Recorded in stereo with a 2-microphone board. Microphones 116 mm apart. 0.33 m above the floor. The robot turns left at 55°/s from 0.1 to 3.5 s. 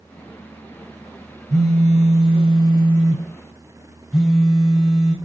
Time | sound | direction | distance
1.5 | a phone buzzing | 70° right | 1.7 m